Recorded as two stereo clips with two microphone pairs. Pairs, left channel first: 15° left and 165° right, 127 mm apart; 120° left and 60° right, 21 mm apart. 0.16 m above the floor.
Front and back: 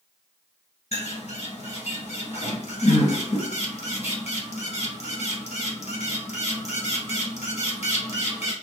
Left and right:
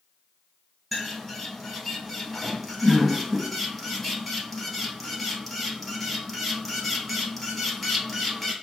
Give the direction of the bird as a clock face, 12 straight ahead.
11 o'clock.